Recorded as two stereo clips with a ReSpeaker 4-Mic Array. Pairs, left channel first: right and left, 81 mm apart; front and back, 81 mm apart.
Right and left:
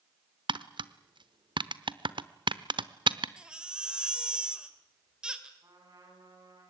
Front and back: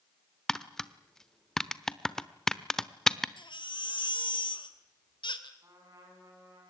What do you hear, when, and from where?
0.5 s tapping: 85° left, 0.9 m
3.4 s a baby crying: 10° left, 2 m
5.6 s a trumpet: 135° left, 8.5 m